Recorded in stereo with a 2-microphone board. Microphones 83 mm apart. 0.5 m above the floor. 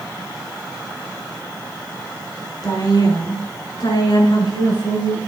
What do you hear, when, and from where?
2.6 s a woman speaking: 55° left (ahead or behind), 5 m; by 5.2 s 80° left, 6.5 m